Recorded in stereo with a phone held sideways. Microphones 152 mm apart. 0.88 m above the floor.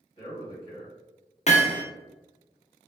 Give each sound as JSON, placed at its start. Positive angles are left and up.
{"t": 0.2, "sound": "a man speaking", "side_deg": 35, "distance_m": 1.2}
{"t": 1.5, "sound": "hammering", "side_deg": 45, "distance_m": 0.6}